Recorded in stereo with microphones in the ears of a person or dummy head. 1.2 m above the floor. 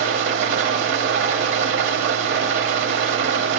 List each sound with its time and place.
0.0 s an engine running: 65° right (ahead or behind), 1.0 m